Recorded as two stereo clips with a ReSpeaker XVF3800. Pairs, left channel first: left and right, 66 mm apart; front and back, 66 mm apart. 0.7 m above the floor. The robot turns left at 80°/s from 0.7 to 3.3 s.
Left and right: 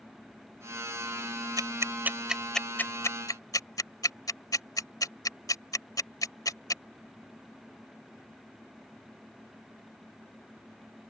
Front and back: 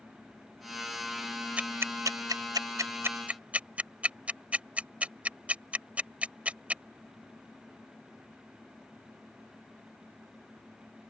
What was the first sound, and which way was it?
Ticking, 110° right.